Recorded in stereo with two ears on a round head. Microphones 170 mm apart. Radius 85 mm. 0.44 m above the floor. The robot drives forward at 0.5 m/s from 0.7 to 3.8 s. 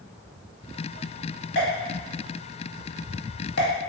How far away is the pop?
About 1.5 m.